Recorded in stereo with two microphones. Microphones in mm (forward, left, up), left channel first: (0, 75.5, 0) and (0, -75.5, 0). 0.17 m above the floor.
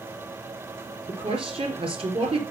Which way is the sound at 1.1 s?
40° right (ahead or behind).